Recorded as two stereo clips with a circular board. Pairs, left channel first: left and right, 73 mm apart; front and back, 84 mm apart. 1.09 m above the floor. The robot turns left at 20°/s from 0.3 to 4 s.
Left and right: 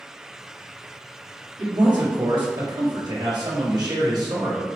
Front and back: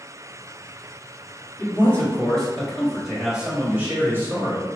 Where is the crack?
No crack in this recording.